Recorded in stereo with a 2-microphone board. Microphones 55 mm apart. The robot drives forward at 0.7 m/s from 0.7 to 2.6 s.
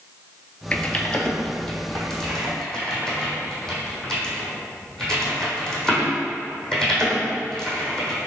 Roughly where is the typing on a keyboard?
Left.